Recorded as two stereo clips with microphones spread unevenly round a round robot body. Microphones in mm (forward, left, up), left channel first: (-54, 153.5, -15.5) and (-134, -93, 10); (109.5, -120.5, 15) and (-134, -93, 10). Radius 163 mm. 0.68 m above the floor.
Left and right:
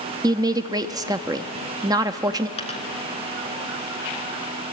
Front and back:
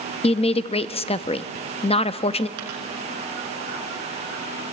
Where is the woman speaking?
35° right, 0.6 m.